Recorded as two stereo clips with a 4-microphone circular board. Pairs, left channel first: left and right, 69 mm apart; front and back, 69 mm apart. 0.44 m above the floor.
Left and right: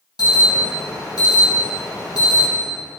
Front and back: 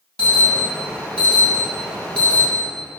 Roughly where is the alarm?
Left.